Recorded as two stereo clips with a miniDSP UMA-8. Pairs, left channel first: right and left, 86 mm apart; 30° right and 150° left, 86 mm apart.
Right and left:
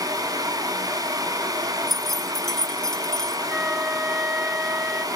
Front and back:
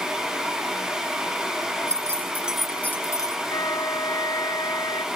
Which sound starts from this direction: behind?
Keys jangling, at 1.9 s.